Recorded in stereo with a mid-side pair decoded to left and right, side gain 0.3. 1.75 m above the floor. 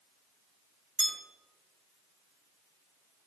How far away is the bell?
About 1.6 m.